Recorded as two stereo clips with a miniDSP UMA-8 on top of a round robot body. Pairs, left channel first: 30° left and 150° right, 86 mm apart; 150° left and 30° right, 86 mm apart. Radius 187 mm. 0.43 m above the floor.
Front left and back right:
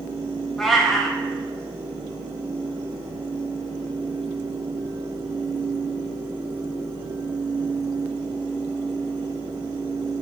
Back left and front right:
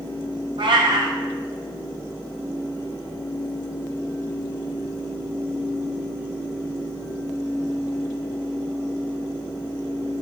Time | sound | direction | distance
0.6 | a cat meowing | 60° right | 0.6 m